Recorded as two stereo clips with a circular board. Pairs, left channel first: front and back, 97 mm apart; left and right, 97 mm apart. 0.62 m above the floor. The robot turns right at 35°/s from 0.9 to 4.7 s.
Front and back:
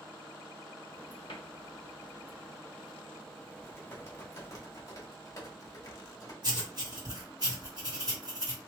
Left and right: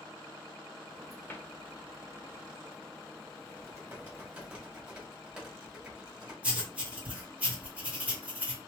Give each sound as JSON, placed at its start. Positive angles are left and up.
{"t": 1.3, "sound": "a cupboard door", "azimuth_deg": 25, "distance_m": 0.8}
{"t": 3.5, "sound": "typing on a keyboard", "azimuth_deg": -60, "distance_m": 1.5}
{"t": 6.4, "sound": "writing", "azimuth_deg": -160, "distance_m": 1.5}